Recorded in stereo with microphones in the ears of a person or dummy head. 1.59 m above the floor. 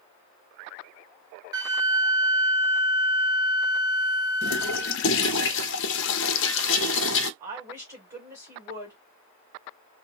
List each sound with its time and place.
1.5 s a flute: 20° right (ahead or behind), 0.6 m
4.4 s a toilet flushing: 65° left (ahead or behind), 0.5 m
7.4 s a woman speaking: 15° right (ahead or behind), 1.7 m